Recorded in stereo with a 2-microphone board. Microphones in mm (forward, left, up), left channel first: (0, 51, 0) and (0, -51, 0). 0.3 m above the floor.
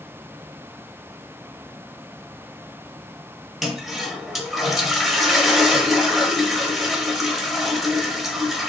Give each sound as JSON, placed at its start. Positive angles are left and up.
{"t": 3.6, "sound": "a toilet flushing", "side_deg": 0, "distance_m": 0.6}